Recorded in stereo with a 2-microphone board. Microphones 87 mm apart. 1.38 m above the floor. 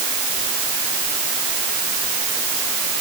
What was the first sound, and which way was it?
Only background noise.